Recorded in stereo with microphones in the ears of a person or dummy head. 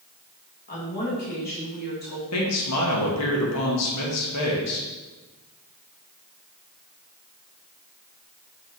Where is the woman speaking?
45° left (ahead or behind), 2.0 m.